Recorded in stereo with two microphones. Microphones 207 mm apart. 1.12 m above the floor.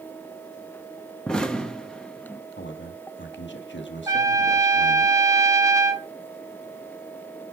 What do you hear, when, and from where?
1.3 s an explosion: 5° left (ahead or behind), 1.3 m
2.6 s a man speaking: 60° left (ahead or behind), 1.6 m
4.1 s a trumpet: 15° right (ahead or behind), 1.4 m